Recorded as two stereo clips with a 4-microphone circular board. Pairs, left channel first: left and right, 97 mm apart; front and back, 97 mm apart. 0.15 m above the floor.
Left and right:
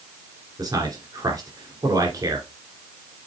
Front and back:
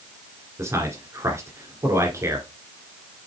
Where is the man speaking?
125° right, 2.5 m.